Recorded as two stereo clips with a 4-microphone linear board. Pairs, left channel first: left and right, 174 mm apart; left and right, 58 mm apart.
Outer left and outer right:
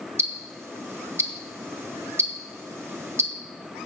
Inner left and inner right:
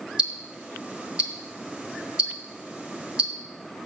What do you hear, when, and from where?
0.2 s ticking: 15° right (ahead or behind), 1.1 m